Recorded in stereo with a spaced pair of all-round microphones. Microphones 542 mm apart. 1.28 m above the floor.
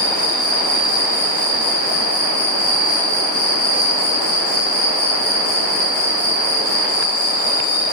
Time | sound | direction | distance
0.0 | an insect | 80° left | 7.5 m